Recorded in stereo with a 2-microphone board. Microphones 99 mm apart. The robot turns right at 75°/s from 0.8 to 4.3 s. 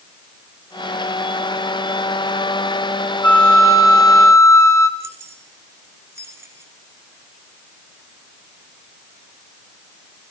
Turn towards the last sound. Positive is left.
turn(degrees=-25)  # may be behind; listen again after turning